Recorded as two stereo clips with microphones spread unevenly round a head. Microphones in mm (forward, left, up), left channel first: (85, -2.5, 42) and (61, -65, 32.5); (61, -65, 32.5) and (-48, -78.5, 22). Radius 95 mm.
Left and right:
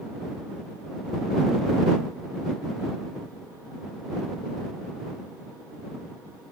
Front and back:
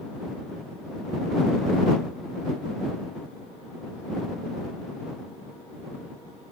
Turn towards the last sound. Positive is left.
No sound to turn to.